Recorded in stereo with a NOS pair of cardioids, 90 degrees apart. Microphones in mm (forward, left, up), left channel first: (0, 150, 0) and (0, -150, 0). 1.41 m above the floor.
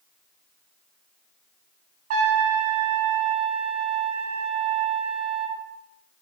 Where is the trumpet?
50° right, 0.7 m.